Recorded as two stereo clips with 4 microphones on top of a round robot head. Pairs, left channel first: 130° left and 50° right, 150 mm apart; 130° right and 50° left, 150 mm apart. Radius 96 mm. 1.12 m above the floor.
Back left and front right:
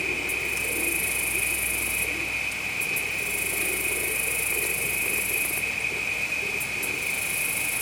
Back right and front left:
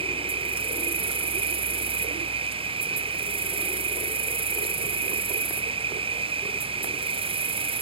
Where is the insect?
45° left.